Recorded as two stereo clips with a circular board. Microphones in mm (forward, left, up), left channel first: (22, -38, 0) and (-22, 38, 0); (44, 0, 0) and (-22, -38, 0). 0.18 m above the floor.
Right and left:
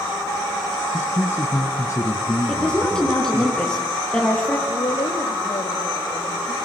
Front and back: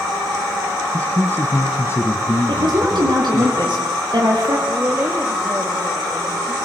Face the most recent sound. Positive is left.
turn(degrees=-85)